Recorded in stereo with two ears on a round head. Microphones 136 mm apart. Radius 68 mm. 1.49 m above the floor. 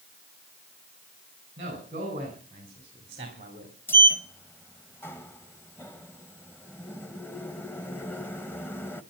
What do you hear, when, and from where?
1.6 s a man speaking: 40° right (ahead or behind), 6 m; by 3.8 s 35° right (ahead or behind), 3 m
3.9 s a sliding door: 15° left (ahead or behind), 0.9 m